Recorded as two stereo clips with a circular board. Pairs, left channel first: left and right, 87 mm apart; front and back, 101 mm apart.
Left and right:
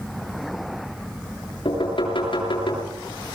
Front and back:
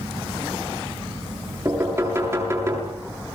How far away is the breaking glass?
No breaking glass in this recording.